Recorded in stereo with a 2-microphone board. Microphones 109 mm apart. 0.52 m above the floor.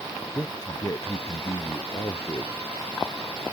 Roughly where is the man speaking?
Left.